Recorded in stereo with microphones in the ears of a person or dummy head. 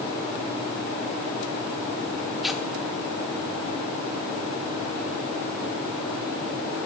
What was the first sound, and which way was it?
Tearing paper, centre (ahead or behind).